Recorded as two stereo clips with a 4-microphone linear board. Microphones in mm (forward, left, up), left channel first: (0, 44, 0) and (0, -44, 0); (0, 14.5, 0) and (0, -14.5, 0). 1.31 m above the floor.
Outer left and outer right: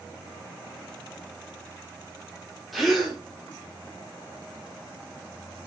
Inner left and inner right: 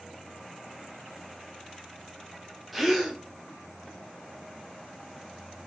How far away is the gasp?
About 2.5 m.